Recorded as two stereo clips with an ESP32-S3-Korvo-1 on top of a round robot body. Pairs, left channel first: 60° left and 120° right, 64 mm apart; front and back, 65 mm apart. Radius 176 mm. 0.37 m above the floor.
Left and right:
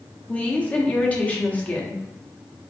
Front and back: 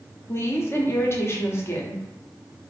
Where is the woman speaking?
5° left, 1.3 m.